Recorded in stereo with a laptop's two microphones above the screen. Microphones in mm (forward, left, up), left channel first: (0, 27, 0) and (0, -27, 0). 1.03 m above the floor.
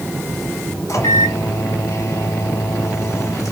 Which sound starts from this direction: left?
A microwave, at 0.9 s.